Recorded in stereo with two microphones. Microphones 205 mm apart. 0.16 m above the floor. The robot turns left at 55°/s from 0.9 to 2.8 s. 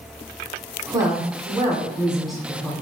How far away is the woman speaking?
About 1.0 m.